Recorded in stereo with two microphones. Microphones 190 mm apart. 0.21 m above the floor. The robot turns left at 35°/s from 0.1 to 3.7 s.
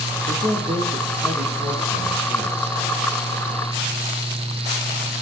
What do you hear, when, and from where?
0.3 s a man speaking: 110° right, 4 m; by 2.8 s 160° left, 4 m